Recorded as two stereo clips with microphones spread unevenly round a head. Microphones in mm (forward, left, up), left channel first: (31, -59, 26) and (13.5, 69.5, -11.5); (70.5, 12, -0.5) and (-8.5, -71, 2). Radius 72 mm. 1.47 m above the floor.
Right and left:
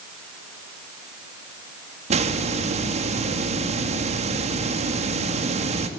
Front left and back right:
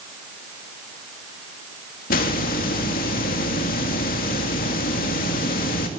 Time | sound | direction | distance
2.1 | a hiss | 55° left | 2.5 m